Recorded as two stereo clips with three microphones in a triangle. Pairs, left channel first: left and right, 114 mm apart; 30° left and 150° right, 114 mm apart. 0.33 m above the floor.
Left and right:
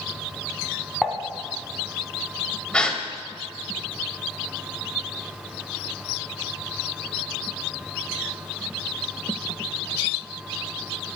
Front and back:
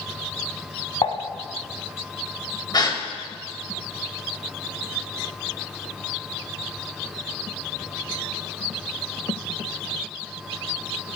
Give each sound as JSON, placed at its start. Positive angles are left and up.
{"t": 1.0, "sound": "dishes clattering", "azimuth_deg": 0, "distance_m": 1.6}
{"t": 2.7, "sound": "a gasp", "azimuth_deg": 15, "distance_m": 1.7}